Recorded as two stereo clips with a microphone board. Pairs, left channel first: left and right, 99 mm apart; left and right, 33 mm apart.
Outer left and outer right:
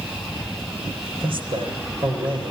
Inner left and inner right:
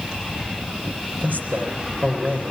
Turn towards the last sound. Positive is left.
turn(degrees=-55)  # may be behind; listen again after turning